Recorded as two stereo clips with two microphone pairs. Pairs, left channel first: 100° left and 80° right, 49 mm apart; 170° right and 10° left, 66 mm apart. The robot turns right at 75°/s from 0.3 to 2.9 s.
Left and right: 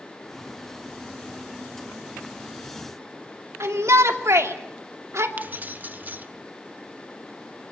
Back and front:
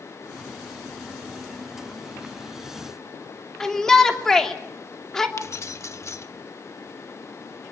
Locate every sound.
3.6 s a shout: 90° right, 2.5 m
5.4 s keys jangling: 130° right, 1.0 m